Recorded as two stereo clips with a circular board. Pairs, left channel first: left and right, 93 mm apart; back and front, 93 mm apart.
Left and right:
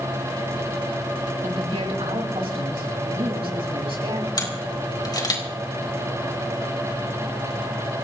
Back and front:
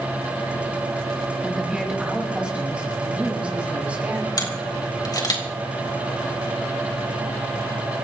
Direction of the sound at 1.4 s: 85° right.